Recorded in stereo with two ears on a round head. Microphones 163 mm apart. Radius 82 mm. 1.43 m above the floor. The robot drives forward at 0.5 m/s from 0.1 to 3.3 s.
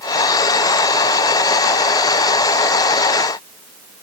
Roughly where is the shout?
No shout in this recording.